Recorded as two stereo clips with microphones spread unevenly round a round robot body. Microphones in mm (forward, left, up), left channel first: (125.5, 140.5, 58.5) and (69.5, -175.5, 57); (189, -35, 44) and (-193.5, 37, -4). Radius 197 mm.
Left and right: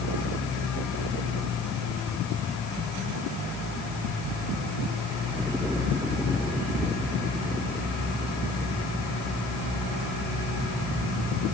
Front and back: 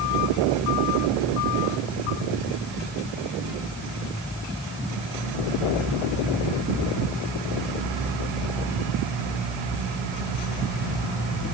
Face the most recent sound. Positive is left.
No sound to turn to.